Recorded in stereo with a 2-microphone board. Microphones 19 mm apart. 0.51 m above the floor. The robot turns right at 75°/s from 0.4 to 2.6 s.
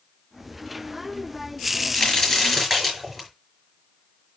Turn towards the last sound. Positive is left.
turn(degrees=-175)